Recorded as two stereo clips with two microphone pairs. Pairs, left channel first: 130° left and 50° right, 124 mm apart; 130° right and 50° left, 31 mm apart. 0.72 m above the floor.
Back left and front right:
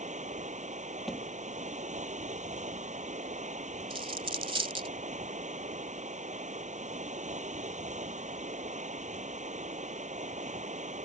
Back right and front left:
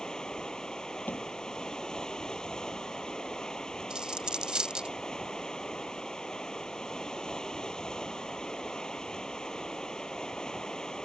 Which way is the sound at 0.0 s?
60° right.